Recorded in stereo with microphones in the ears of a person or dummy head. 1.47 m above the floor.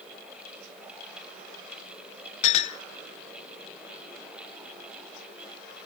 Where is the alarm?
No alarm in this recording.